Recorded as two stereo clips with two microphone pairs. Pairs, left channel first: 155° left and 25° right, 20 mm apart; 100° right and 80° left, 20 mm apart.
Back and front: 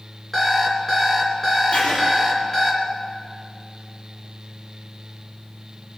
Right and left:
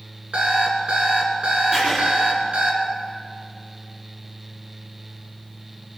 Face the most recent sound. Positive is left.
turn(degrees=155)